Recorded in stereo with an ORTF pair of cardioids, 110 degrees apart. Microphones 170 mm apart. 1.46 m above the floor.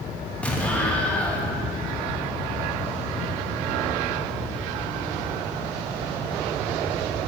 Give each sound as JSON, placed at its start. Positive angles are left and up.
{"t": 0.4, "sound": "an explosion", "azimuth_deg": 10, "distance_m": 1.1}